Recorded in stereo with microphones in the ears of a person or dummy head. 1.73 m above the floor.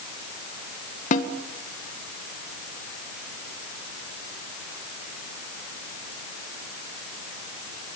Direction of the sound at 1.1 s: 40° left (ahead or behind).